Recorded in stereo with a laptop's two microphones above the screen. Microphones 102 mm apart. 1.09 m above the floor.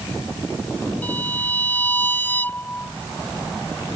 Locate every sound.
1.0 s a violin: 20° left (ahead or behind)